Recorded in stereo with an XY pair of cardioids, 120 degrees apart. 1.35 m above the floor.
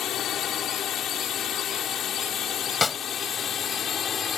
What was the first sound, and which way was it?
A drone, 60° left.